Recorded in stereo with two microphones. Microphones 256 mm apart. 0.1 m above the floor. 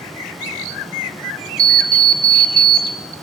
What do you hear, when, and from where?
1.6 s an alarm clock: 35° right (ahead or behind), 0.7 m